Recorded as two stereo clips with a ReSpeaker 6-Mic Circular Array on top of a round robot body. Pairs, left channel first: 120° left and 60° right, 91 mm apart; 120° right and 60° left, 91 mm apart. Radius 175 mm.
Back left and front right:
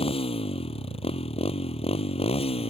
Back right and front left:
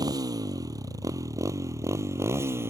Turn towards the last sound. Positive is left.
turn(degrees=125)